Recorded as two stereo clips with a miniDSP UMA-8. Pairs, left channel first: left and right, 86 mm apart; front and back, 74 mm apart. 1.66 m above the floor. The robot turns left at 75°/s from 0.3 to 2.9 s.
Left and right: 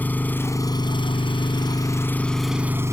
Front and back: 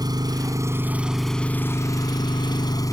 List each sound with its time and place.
0.0 s an engine running: 160° left; by 2.9 s 35° right